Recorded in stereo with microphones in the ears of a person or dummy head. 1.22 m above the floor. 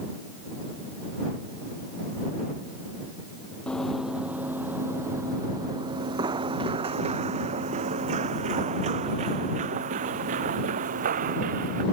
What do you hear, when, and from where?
3.7 s running footsteps: 5° left (ahead or behind); by 11.8 s 45° right (ahead or behind)